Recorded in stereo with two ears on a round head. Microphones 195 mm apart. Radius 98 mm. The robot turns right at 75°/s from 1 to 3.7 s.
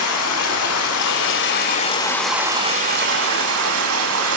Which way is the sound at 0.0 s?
85° left.